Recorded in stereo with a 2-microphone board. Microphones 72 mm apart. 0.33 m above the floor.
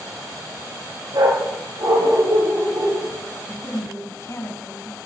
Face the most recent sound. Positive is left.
turn(degrees=40)  # may be behind; listen again after turning